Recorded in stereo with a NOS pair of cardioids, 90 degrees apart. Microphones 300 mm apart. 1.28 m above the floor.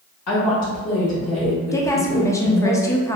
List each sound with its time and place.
0.3 s a woman speaking: 55° left, 1.7 m
1.7 s a woman speaking: 10° left, 0.7 m